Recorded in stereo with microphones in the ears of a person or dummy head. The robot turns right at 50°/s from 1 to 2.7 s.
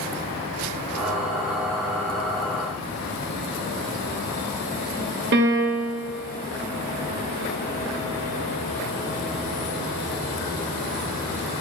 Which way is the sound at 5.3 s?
50° right (ahead or behind).